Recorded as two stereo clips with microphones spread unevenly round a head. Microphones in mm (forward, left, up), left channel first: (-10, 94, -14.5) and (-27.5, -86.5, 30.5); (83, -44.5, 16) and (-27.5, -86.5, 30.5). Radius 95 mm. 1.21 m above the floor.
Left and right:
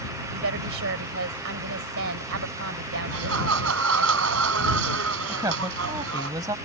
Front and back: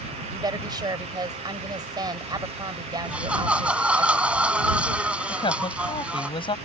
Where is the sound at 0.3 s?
105° right.